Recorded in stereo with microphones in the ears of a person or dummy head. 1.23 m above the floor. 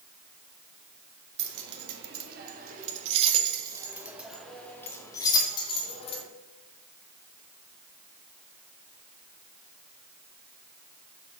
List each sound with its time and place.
1.4 s keys jangling: 70° right (ahead or behind), 1.5 m; by 6.2 s 35° left (ahead or behind), 1.6 m